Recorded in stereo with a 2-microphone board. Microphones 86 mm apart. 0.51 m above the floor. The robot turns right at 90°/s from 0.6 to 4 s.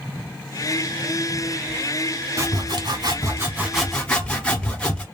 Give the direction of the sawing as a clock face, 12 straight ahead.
4 o'clock.